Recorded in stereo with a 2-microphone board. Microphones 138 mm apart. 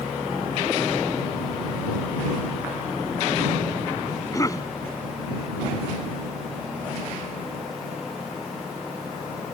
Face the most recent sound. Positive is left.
turn(degrees=25)  # may be behind; listen again after turning